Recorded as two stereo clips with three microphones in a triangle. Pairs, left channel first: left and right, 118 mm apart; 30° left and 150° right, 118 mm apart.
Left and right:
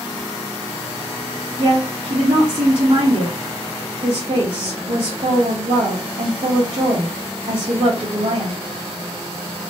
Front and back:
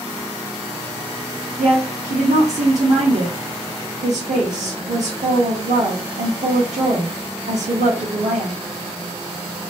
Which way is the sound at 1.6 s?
140° right.